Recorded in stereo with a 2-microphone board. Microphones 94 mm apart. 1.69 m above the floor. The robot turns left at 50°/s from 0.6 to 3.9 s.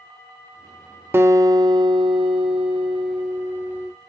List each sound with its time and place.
1.1 s a guitar: 30° right, 0.6 m; by 3.9 s 165° right, 0.6 m